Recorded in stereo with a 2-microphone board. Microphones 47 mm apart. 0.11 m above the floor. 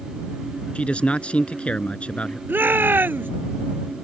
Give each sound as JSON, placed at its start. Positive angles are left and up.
{"t": 0.8, "sound": "a man speaking", "side_deg": 25}
{"t": 2.5, "sound": "a shout", "side_deg": -45}